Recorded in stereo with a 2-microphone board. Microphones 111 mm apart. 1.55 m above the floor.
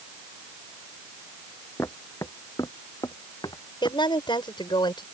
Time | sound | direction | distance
1.8 | footsteps | 25° left (ahead or behind) | ?
3.8 | a woman speaking | 50° left (ahead or behind) | ?